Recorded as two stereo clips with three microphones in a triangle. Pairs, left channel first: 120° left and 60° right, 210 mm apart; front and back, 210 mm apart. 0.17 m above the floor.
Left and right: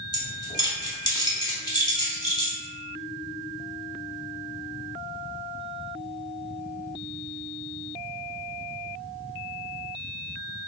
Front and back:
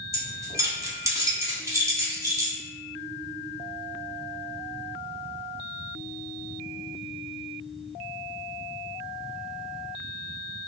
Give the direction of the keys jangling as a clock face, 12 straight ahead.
7 o'clock.